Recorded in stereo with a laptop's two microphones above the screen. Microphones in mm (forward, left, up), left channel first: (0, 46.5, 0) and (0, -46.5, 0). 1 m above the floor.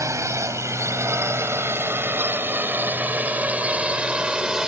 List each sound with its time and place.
0.0 s a drone: 35° right (ahead or behind); by 4.7 s 10° right (ahead or behind)